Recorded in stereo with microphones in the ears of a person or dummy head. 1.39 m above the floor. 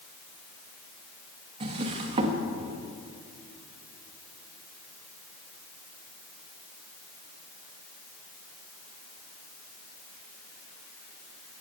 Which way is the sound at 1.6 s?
35° right (ahead or behind).